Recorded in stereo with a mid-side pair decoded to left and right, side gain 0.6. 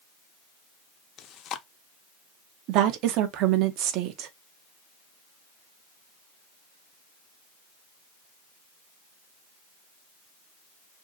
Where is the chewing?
55° left, 0.5 m.